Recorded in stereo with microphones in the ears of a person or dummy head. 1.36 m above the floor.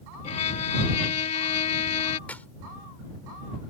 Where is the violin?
40° left (ahead or behind).